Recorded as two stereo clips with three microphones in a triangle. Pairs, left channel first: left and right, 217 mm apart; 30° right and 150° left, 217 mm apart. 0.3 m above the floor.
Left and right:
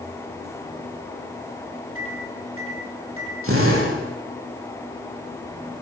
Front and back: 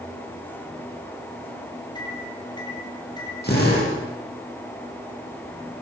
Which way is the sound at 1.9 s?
100° right.